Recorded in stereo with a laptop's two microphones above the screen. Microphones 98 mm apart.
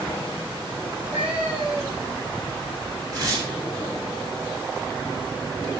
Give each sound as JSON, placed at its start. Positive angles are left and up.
{"t": 0.8, "sound": "a cat meowing", "side_deg": -15, "distance_m": 7.5}
{"t": 3.1, "sound": "tearing paper", "side_deg": -35, "distance_m": 7.0}